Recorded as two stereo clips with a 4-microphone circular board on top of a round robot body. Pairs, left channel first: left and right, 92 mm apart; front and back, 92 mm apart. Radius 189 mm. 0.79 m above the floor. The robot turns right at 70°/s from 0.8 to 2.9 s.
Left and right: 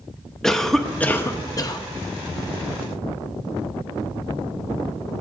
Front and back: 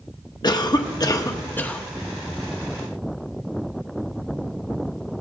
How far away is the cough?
About 1.1 m.